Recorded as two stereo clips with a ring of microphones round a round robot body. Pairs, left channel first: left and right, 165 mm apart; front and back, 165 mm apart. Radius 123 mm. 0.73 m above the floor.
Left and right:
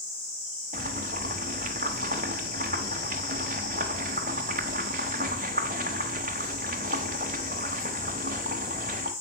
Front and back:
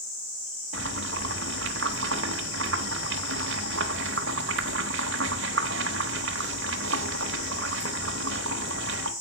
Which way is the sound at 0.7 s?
150° right.